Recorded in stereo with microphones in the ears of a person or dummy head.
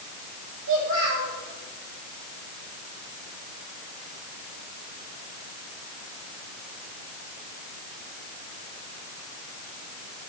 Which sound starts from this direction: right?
A child speaking, at 0.7 s.